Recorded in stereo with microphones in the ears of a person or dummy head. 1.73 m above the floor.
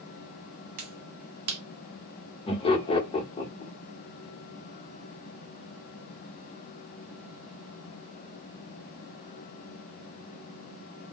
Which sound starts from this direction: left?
Laughter, at 2.5 s.